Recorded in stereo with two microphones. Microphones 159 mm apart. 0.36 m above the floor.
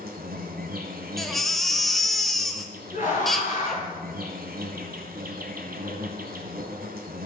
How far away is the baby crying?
About 1.0 m.